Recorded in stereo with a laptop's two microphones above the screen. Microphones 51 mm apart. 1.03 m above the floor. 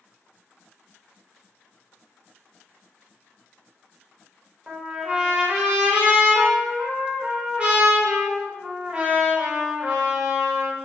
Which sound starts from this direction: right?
A trumpet, at 4.7 s.